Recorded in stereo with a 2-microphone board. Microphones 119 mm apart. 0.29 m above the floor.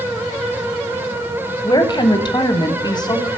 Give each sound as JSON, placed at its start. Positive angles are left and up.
{"t": 1.6, "sound": "a woman speaking", "side_deg": 35, "distance_m": 1.3}